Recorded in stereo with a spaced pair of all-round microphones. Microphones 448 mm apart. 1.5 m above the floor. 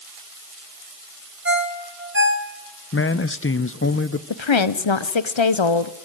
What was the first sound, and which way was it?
A ringtone, 25° right (ahead or behind).